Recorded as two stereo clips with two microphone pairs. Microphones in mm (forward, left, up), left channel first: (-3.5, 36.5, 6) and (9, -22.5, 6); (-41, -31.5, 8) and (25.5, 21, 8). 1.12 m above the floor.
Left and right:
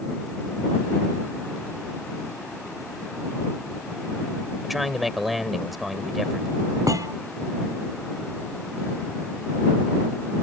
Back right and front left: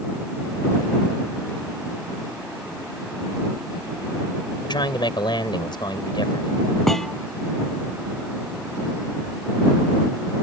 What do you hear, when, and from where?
4.6 s a man speaking: 165° right
6.9 s a thud: 55° right